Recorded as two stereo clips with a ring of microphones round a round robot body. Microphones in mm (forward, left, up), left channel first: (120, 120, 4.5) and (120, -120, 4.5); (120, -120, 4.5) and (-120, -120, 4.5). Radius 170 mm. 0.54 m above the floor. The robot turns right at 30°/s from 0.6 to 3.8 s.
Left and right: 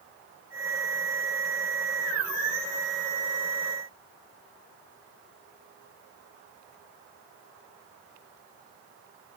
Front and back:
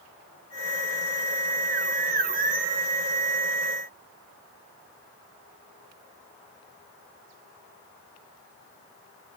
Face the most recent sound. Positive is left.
No sound to turn to.